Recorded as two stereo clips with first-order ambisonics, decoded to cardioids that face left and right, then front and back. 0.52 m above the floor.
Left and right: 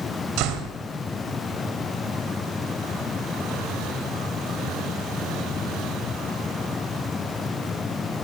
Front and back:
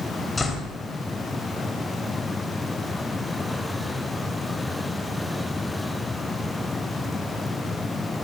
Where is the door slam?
80° right, 2 m.